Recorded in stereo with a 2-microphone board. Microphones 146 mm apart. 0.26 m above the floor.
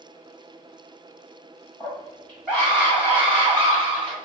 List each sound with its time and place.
1.8 s a scream: 15° left (ahead or behind), 1.6 m; by 4.1 s 30° right (ahead or behind), 1.8 m